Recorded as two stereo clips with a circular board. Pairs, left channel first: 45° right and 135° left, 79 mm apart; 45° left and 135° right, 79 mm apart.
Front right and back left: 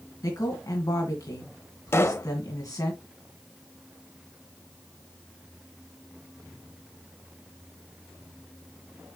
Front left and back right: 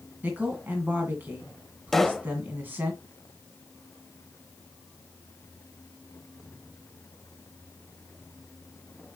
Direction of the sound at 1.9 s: 40° right.